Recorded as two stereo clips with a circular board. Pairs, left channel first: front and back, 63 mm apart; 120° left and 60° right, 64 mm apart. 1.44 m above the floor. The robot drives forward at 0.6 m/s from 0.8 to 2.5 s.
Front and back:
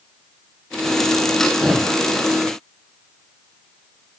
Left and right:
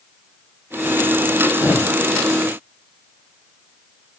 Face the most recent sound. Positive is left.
turn(degrees=110)